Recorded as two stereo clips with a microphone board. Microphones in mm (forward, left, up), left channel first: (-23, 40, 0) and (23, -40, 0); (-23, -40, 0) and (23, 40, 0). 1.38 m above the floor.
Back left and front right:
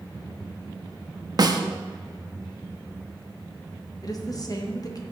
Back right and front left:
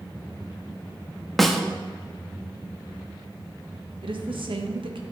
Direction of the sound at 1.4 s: 30° right.